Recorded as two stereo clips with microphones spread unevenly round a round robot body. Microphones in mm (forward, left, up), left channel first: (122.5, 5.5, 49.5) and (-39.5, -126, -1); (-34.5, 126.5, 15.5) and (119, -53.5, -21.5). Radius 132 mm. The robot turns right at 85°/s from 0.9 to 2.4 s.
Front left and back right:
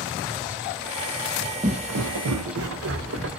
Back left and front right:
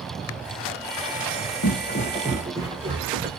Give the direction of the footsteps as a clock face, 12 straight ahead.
7 o'clock.